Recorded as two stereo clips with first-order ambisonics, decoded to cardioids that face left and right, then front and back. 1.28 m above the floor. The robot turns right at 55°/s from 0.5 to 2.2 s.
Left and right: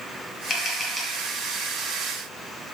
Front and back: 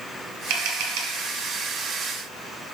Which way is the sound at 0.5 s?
155° left.